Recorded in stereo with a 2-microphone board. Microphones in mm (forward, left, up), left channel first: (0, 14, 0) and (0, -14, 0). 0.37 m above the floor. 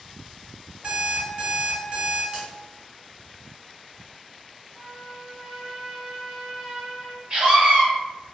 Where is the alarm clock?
35° right (ahead or behind), 2.0 m.